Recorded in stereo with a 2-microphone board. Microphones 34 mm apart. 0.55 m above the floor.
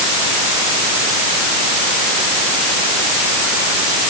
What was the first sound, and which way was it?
Only background noise.